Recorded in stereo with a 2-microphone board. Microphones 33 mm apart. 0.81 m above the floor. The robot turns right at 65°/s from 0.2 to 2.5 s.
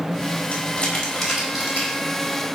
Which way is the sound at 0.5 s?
50° left (ahead or behind).